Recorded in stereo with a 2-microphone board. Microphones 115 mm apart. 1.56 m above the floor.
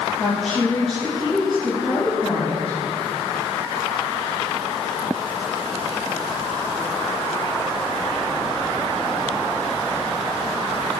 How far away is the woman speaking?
About 2.5 m.